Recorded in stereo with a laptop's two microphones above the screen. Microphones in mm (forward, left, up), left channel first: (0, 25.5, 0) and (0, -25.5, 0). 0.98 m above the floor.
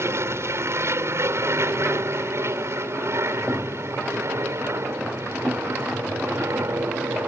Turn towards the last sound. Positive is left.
turn(degrees=-60)  # may be behind; listen again after turning